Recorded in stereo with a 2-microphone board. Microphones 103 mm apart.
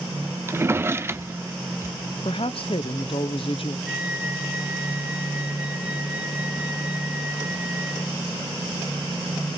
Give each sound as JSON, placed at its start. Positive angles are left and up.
{"t": 0.5, "sound": "a drawer", "side_deg": -25, "distance_m": 0.5}
{"t": 2.2, "sound": "a woman speaking", "side_deg": 65, "distance_m": 0.8}
{"t": 3.9, "sound": "a flute", "side_deg": -10, "distance_m": 1.0}